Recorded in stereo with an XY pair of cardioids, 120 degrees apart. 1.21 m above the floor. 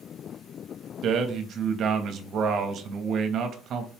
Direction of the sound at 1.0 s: 60° right.